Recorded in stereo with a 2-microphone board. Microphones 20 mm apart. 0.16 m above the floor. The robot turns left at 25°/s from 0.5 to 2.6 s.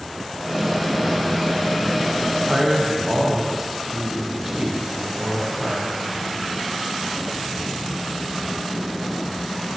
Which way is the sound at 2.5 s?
15° right (ahead or behind).